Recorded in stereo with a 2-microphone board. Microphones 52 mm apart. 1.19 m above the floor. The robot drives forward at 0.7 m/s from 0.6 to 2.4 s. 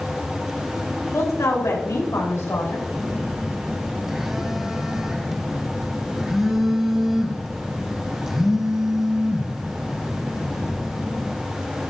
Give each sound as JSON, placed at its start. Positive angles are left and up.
{"t": 1.1, "sound": "a woman speaking", "side_deg": 85, "distance_m": 3.0}
{"t": 2.9, "sound": "a phone buzzing", "side_deg": -10, "distance_m": 0.9}